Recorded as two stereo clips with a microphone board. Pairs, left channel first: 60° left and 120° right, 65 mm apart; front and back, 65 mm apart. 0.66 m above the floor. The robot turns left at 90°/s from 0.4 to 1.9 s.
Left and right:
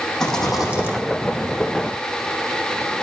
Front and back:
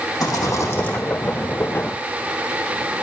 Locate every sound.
0.2 s a rattle: 20° right, 4.5 m; by 1.0 s 70° right, 4.5 m